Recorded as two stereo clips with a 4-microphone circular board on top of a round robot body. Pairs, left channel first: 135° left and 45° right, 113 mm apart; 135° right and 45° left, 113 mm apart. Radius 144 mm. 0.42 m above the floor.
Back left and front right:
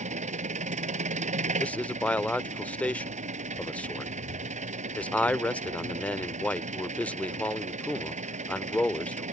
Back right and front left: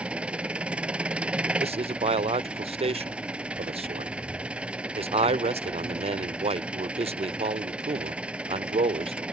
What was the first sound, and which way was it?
An engine running, 35° right.